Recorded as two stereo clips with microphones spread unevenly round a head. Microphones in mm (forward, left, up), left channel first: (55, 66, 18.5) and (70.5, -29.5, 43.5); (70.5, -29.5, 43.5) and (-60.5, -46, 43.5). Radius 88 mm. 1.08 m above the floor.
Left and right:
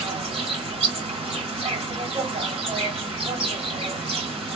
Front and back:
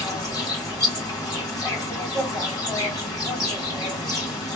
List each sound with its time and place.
0.0 s an insect: 55° right, 2.5 m